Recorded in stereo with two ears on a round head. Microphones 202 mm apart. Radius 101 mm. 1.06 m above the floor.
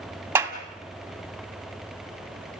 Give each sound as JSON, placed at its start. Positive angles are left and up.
{"t": 0.3, "sound": "a clap", "side_deg": -10, "distance_m": 1.8}